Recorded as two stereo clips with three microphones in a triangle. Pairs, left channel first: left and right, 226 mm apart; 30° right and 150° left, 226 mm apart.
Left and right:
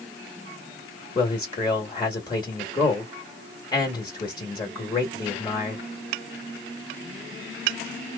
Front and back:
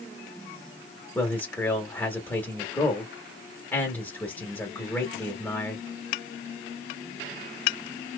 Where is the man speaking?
40° left, 1.0 m.